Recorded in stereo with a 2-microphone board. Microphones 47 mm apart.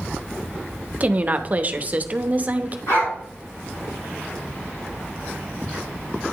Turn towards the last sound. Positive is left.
turn(degrees=70)  # may be behind; listen again after turning